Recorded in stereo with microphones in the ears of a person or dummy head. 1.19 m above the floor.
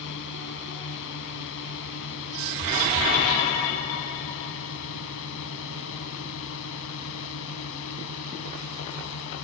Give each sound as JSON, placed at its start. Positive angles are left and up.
{"t": 0.0, "sound": "a drone", "side_deg": 65}